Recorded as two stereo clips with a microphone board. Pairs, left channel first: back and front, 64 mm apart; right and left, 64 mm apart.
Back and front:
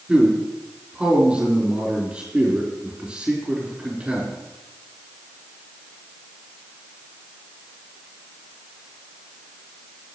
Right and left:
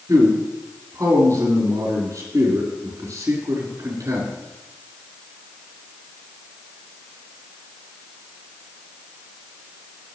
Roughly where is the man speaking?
Left.